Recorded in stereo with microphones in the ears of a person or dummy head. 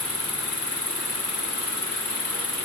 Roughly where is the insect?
Centre.